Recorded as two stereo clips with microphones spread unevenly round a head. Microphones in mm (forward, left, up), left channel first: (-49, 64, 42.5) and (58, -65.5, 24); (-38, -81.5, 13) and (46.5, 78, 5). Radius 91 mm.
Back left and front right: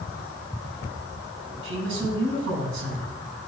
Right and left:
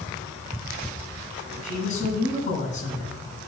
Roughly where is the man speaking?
Right.